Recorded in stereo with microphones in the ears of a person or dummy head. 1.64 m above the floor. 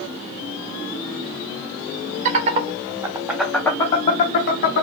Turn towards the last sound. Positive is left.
turn(degrees=55)  # may be behind; listen again after turning